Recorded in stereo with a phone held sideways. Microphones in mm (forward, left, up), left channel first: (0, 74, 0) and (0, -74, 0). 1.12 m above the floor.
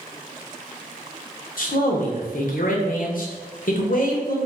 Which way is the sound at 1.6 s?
65° left (ahead or behind).